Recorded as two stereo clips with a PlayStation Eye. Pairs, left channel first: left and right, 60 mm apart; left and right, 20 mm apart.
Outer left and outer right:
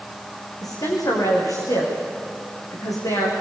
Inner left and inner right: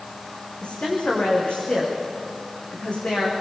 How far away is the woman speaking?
About 9.5 m.